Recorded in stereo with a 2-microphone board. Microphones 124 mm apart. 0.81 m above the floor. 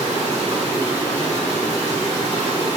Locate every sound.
0.0 s running water: 25° left (ahead or behind), 1.4 m